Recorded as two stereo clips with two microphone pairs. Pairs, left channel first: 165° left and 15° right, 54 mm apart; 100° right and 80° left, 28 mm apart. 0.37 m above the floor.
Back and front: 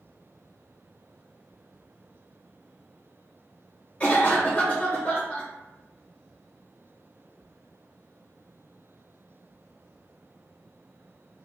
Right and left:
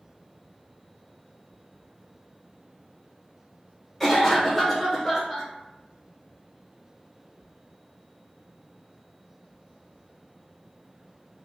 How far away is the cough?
About 0.9 m.